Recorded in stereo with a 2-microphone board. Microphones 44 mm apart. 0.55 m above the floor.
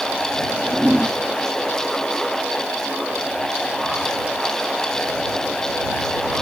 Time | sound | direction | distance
0.4 | a whoosh | 10° right (ahead or behind) | ?